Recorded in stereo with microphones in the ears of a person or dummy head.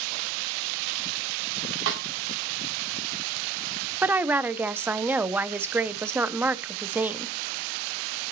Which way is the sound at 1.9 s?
70° right (ahead or behind).